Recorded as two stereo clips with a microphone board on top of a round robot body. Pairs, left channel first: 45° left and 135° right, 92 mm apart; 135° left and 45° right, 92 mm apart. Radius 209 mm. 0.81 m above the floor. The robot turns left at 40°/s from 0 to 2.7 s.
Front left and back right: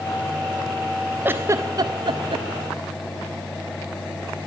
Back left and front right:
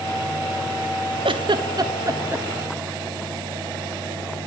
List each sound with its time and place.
1.2 s a giggle: 65° right, 0.6 m; by 2.5 s 115° right, 0.6 m